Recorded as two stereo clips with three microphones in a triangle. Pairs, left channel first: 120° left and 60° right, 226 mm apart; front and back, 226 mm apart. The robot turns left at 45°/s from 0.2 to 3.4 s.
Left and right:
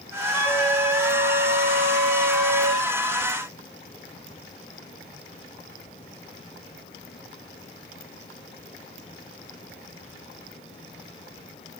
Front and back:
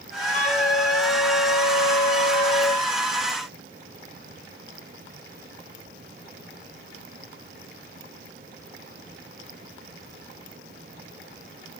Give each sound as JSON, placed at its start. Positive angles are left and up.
{"t": 0.3, "sound": "a flute", "azimuth_deg": 50, "distance_m": 1.8}